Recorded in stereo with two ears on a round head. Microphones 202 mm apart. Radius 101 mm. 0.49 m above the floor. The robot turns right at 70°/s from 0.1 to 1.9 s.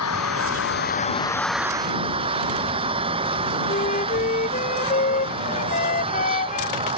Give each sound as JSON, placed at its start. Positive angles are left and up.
{"t": 0.0, "sound": "an engine running", "azimuth_deg": 80}
{"t": 3.7, "sound": "a flute", "side_deg": 35}